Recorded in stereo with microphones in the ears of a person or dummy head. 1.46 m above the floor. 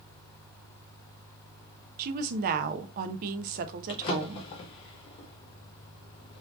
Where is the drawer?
30° left (ahead or behind), 0.8 m.